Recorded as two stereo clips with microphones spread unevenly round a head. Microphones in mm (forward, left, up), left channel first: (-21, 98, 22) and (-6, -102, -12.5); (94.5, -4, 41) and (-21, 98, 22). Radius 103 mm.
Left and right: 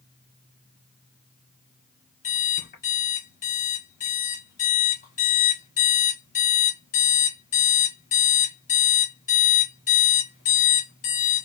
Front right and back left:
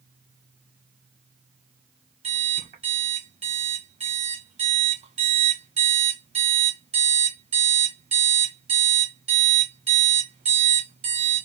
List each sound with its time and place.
2.2 s an alarm clock: 95° left, 1.2 m